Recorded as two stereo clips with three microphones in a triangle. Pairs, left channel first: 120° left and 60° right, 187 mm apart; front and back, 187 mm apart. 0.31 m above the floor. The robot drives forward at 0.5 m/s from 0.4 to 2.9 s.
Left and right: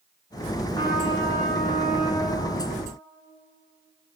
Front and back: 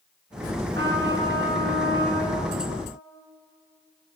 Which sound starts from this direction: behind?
A trumpet, at 0.7 s.